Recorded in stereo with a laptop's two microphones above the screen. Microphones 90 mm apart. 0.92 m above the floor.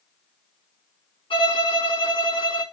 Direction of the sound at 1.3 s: 75° left (ahead or behind).